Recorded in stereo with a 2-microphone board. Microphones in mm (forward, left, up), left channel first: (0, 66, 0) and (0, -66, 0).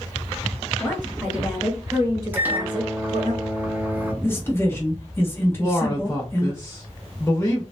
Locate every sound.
0.8 s a woman speaking: 15° left (ahead or behind), 1.6 m; by 3.3 s 55° right (ahead or behind), 1.4 m
2.3 s a microwave: 15° right (ahead or behind), 0.8 m
4.2 s a man speaking: 20° left (ahead or behind), 1.0 m
5.6 s a man speaking: 20° left (ahead or behind), 0.8 m